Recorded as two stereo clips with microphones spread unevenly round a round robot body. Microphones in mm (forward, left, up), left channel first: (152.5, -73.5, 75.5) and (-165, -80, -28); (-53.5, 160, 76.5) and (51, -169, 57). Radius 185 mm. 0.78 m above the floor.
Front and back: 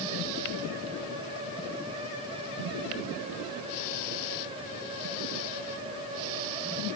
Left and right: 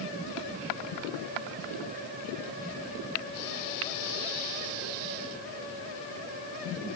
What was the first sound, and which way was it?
Only background noise.